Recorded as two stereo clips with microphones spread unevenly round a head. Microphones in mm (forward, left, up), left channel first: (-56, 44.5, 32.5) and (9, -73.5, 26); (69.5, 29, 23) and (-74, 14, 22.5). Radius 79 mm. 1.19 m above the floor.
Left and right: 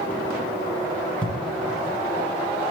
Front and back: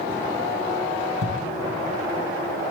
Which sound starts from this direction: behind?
A thud, at 1.2 s.